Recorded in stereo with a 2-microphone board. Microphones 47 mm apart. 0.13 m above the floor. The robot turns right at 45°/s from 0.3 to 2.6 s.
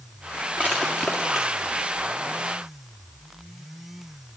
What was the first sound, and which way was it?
Crushing, 30° right (ahead or behind).